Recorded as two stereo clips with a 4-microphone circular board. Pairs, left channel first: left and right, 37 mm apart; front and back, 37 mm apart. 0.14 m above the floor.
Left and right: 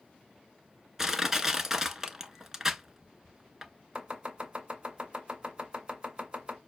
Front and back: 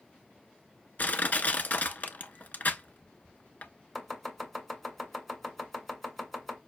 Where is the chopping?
75° right, 1.7 m.